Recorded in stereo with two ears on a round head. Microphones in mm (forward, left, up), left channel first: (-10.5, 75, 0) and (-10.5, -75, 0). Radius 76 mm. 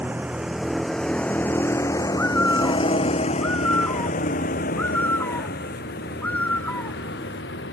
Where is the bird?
10° left (ahead or behind).